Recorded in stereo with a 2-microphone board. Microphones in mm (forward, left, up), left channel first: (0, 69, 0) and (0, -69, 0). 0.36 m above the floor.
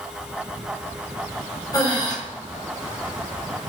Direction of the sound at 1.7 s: 30° left (ahead or behind).